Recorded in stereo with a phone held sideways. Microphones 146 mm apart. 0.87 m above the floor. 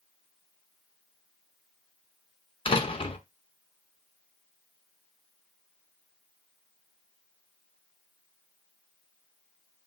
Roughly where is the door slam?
Left.